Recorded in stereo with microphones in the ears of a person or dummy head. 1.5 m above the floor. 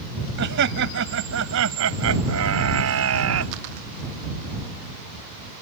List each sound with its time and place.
0.4 s laughter: 60° right (ahead or behind); by 3.5 s 85° right